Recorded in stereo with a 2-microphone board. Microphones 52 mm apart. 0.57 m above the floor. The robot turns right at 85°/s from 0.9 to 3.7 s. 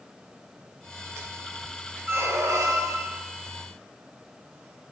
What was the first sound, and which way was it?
A squeak, 140° right.